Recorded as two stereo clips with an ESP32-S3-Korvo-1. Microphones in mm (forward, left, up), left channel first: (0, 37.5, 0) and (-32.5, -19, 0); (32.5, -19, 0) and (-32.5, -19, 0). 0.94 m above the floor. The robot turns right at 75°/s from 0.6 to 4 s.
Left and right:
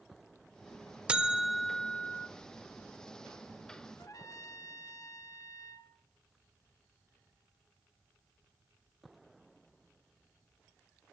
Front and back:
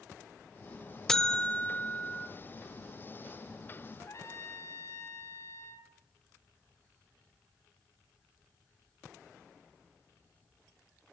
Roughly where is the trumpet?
Ahead left.